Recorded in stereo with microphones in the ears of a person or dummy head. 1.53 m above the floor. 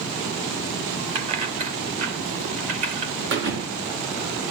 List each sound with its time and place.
1.1 s keys jangling: 35° right (ahead or behind), 1.8 m; by 3.1 s 45° right (ahead or behind), 3 m
3.3 s a thud: 65° right (ahead or behind), 3.5 m